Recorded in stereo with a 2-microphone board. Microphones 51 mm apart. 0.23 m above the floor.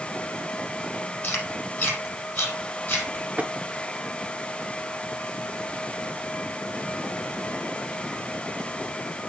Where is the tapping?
30° right (ahead or behind), 1.0 m.